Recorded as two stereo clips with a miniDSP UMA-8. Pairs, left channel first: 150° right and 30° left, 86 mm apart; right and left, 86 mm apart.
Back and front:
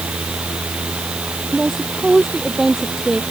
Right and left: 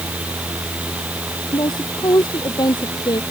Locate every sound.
1.5 s a woman speaking: 55° right